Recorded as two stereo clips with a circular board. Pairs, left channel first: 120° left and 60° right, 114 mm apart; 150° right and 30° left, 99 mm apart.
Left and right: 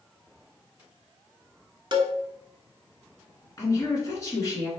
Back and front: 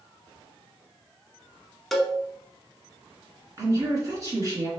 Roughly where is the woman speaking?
Left.